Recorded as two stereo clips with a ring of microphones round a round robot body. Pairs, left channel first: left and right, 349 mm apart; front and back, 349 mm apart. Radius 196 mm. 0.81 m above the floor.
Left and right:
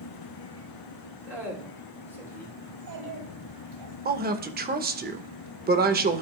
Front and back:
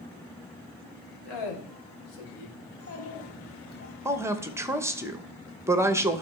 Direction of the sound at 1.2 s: 5° right.